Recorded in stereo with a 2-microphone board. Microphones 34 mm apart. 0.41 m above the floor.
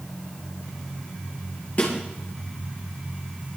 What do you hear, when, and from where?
1.8 s a snare drum: 50° left (ahead or behind), 3.5 m